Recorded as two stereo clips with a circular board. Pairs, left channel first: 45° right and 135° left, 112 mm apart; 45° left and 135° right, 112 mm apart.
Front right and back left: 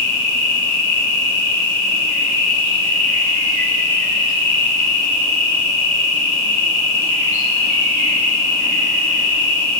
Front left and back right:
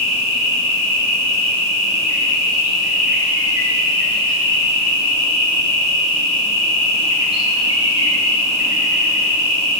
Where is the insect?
85° right, 1.8 m.